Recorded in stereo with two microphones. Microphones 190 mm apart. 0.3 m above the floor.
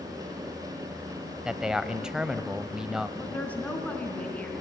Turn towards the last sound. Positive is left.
turn(degrees=5)  # may be behind; listen again after turning